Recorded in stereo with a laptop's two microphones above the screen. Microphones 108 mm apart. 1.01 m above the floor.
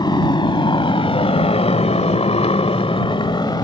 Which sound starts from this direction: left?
A motorcycle, at 0.0 s.